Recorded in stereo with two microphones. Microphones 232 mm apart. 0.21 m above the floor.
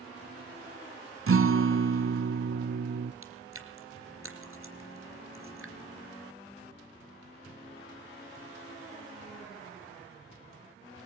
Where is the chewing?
70° right (ahead or behind), 3 m.